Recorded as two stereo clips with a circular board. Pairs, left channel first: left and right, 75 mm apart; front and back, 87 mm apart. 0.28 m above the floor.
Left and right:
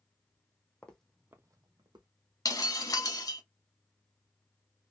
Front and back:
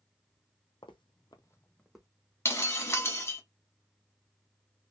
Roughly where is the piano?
I don't hear a piano.